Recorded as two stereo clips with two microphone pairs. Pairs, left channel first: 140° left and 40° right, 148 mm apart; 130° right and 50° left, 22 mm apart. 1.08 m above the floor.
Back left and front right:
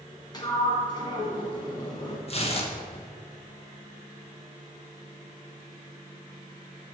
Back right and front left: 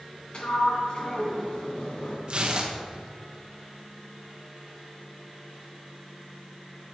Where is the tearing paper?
100° left, 1.2 m.